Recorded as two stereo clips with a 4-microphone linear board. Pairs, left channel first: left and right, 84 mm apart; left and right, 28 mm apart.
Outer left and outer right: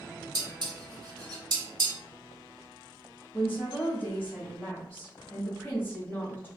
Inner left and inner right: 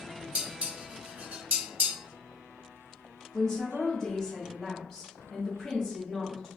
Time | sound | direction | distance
0.3 | dishes clattering | 65° right (ahead or behind) | 1.4 m
3.3 | a woman speaking | 20° left (ahead or behind) | 1.2 m